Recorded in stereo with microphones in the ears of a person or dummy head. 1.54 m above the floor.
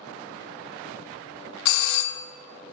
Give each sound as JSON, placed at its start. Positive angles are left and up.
{"t": 1.6, "sound": "a doorbell", "side_deg": 70, "distance_m": 0.6}